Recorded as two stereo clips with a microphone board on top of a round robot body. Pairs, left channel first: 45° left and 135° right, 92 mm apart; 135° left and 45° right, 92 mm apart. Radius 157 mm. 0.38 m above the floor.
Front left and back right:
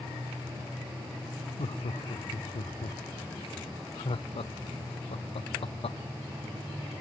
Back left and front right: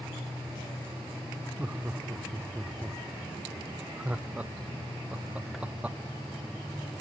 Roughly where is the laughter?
Ahead left.